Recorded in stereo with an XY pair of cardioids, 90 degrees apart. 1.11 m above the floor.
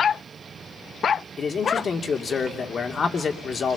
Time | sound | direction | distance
1.4 | a man speaking | 45° left | 2.5 m